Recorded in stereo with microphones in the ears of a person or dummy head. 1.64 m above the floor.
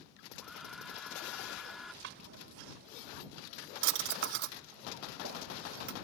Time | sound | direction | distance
0.4 | a hair dryer | centre (ahead or behind) | ?
2.0 | a drawer | 55° right (ahead or behind) | ?